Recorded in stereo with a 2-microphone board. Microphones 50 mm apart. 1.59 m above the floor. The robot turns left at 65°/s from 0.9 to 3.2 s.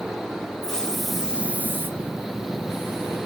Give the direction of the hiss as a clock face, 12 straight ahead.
12 o'clock.